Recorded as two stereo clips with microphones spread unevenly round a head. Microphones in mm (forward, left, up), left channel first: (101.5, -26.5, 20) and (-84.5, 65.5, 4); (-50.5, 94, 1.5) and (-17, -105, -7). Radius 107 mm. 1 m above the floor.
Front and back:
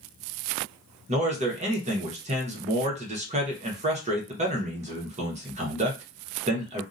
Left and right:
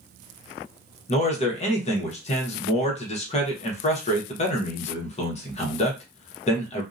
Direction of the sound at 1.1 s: 140° left.